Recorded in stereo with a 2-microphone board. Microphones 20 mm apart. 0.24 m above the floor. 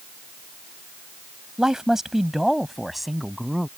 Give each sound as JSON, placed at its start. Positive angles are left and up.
{"t": 1.6, "sound": "a man speaking", "side_deg": -30}